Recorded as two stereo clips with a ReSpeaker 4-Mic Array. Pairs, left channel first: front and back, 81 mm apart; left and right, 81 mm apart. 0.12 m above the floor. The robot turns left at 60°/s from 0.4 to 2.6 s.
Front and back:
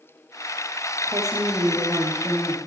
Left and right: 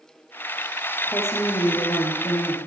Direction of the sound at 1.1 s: 155° left.